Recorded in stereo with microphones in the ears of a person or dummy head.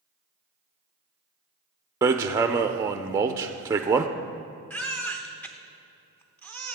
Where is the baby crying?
Centre (ahead or behind), 0.7 m.